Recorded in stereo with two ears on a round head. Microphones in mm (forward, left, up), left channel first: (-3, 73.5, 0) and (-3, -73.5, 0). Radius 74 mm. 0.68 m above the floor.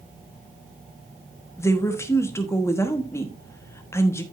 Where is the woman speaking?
15° left (ahead or behind), 1.2 m.